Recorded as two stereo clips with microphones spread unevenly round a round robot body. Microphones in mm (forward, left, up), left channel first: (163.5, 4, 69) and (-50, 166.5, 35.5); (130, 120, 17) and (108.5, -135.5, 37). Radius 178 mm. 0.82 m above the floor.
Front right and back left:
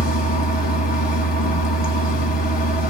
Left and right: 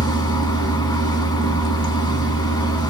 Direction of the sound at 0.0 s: 10° left.